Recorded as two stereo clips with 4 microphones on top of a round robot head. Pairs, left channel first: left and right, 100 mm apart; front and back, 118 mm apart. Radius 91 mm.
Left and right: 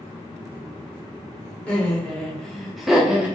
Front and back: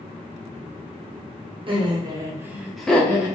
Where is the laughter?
165° left, 1.1 m; by 3.4 s 20° right, 0.9 m.